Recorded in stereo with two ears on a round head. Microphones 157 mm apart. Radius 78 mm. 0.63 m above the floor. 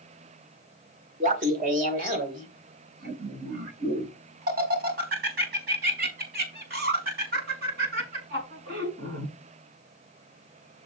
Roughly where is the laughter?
Right.